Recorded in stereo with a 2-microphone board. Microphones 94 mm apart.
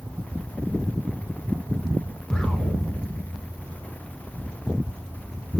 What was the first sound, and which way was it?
An explosion, 10° left (ahead or behind).